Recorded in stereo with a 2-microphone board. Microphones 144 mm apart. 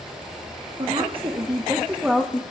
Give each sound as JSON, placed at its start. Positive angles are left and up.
{"t": 0.8, "sound": "a woman speaking", "side_deg": -45, "distance_m": 1.8}